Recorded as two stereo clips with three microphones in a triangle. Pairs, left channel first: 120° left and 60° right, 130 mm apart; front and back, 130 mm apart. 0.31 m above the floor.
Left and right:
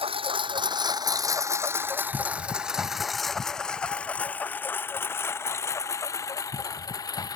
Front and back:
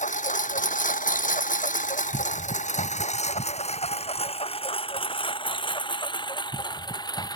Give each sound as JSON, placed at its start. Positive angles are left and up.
{"t": 0.0, "sound": "a lawn mower", "azimuth_deg": -15}